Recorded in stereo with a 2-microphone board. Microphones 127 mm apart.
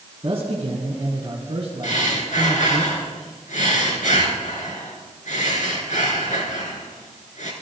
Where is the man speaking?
50° right (ahead or behind), 3 m.